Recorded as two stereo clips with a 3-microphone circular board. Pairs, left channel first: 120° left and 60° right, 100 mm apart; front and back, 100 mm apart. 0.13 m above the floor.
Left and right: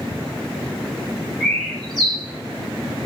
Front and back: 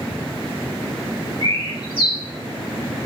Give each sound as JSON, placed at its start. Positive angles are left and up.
{"t": 1.4, "sound": "a bird", "azimuth_deg": 40, "distance_m": 4.5}